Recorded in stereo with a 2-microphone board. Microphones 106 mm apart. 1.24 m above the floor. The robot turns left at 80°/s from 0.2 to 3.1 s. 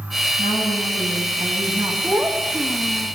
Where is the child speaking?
155° right, 0.9 m; by 3.1 s 120° left, 0.9 m.